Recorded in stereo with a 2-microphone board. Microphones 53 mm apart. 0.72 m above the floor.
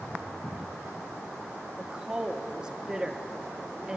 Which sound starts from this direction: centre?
A woman speaking, at 1.8 s.